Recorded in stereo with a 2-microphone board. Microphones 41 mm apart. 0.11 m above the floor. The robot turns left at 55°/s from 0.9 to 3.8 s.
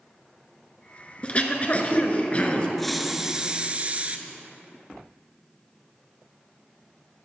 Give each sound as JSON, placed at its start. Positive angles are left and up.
{"t": 1.2, "sound": "throat clearing", "azimuth_deg": 125, "distance_m": 1.0}
{"t": 2.8, "sound": "a hiss", "azimuth_deg": 10, "distance_m": 0.5}